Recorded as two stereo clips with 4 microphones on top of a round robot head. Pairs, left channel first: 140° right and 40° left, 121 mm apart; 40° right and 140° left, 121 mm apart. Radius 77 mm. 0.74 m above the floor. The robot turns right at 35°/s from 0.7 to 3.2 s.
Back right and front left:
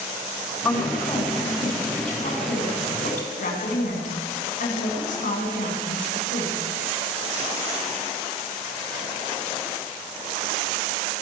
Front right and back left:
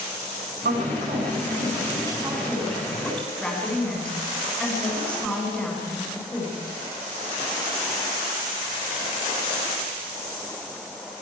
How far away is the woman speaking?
About 8 m.